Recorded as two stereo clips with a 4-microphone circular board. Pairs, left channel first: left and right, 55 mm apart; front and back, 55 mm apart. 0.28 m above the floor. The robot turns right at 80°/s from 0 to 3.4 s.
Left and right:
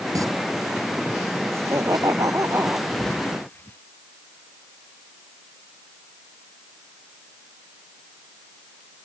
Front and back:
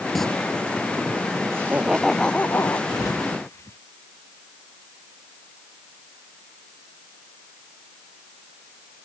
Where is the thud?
5° right; by 3.8 s 40° left.